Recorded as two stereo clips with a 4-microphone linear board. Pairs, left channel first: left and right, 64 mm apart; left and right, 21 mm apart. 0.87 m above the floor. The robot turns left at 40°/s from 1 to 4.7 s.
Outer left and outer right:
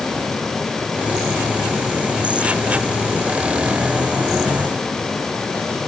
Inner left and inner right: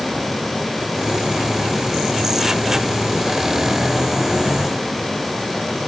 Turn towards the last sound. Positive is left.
No sound to turn to.